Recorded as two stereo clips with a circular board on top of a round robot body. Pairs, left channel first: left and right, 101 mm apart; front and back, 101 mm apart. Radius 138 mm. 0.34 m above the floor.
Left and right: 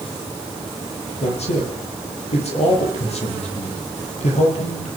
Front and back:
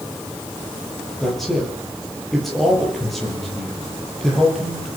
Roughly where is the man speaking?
Left.